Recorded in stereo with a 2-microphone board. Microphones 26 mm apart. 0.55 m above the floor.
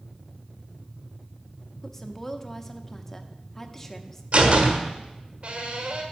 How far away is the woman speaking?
About 0.7 m.